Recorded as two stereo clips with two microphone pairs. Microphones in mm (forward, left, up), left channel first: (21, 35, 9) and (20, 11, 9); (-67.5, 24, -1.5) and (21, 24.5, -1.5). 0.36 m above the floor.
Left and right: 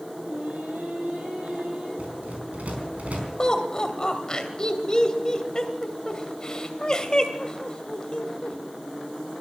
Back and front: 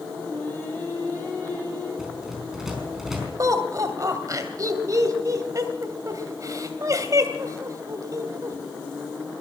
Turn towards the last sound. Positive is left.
turn(degrees=35)